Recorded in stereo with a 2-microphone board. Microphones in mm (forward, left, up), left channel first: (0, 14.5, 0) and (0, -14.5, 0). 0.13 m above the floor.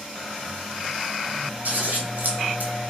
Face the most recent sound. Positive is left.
turn(degrees=-70)  # may be behind; listen again after turning